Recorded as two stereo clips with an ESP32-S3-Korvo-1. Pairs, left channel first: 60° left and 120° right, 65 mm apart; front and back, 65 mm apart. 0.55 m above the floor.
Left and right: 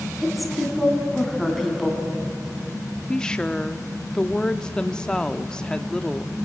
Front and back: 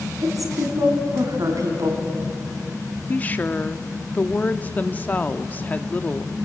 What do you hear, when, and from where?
0.2 s a woman speaking: 150° left, 4 m
3.1 s a woman speaking: straight ahead, 0.6 m